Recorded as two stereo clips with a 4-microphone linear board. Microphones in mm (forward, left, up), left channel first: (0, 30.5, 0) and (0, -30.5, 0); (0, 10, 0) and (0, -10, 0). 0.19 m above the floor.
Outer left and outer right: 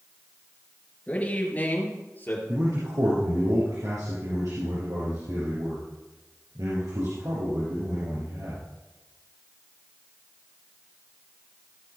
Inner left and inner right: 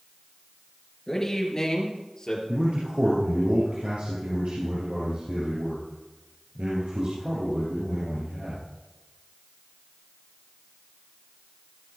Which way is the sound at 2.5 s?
75° right (ahead or behind).